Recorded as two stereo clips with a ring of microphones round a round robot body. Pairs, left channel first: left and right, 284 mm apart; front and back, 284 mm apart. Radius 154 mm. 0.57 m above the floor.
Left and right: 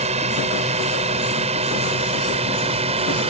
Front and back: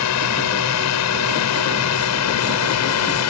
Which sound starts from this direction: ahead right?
A drone, at 0.0 s.